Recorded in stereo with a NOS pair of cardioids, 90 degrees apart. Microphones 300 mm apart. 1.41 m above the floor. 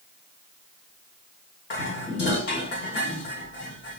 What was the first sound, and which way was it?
Dishes clattering, 40° left.